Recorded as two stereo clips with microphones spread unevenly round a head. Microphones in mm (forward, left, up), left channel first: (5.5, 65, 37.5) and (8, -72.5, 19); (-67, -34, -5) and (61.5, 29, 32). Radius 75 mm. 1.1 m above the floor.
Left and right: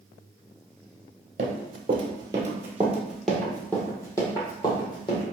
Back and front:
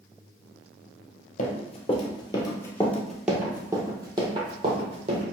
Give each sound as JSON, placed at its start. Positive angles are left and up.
{"t": 1.4, "sound": "running footsteps", "azimuth_deg": -120, "distance_m": 1.3}